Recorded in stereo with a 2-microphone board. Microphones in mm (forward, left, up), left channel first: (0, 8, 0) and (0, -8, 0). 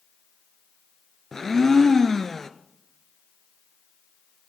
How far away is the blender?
About 0.7 m.